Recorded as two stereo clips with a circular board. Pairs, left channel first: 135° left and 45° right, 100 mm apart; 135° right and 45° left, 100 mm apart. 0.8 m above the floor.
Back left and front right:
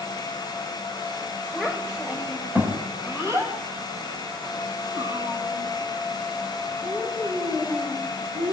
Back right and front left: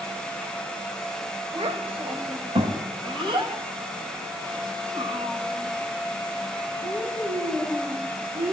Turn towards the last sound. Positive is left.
turn(degrees=-10)